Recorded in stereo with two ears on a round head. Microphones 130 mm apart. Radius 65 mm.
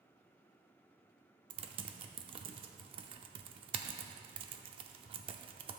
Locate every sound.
1.5 s typing on a keyboard: 35° right (ahead or behind), 0.6 m